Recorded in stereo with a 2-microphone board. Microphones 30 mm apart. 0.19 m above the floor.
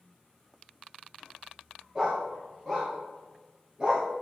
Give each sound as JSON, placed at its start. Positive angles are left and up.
{"t": 1.9, "sound": "a dog barking", "side_deg": -20, "distance_m": 6.0}